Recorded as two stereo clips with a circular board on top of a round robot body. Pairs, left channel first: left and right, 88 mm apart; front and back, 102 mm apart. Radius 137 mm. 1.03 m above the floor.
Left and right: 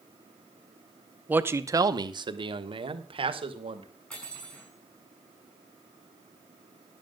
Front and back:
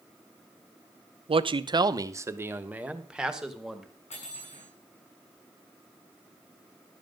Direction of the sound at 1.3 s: 160° right.